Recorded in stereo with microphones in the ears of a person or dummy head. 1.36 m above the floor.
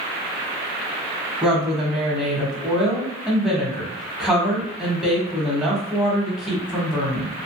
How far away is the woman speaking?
About 1.2 m.